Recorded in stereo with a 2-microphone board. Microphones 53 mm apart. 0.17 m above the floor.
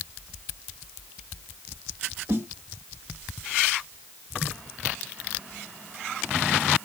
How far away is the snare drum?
About 1.6 m.